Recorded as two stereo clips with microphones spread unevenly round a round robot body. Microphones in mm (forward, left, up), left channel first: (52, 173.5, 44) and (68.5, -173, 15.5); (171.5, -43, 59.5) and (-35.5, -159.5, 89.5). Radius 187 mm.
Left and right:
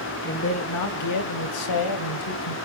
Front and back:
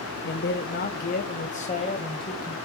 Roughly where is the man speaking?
Ahead left.